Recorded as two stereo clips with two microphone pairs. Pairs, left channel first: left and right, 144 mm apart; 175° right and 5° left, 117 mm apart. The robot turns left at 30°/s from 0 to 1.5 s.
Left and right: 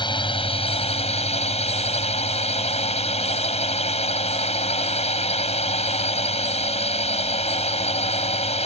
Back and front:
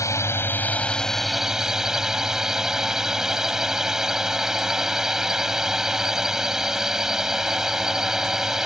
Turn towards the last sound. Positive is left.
turn(degrees=85)